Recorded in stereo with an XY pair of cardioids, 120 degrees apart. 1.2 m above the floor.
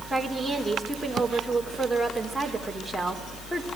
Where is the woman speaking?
Straight ahead, 4.5 m.